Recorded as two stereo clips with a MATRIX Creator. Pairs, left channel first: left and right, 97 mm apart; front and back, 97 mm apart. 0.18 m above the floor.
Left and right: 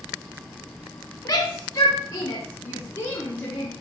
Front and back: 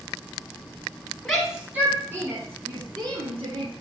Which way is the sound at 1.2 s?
80° left.